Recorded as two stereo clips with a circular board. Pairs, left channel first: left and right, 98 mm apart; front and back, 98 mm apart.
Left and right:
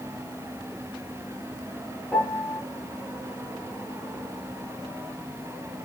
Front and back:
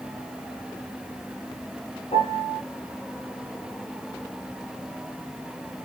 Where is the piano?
15° left, 3.5 m.